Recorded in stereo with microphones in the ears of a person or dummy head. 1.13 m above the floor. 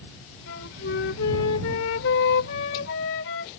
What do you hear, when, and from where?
0.5 s a flute: 70° left (ahead or behind)